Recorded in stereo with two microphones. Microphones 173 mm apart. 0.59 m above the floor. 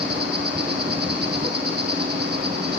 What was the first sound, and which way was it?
An insect, 75° right (ahead or behind).